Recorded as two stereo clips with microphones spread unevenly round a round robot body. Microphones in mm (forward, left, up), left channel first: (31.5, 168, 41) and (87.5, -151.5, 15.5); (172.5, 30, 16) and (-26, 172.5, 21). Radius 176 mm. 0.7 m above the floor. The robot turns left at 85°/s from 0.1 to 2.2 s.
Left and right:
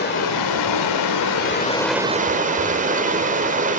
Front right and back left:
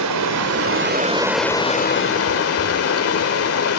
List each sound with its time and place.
0.0 s running water: 165° left, 2.5 m; by 3.8 s 15° right, 2.5 m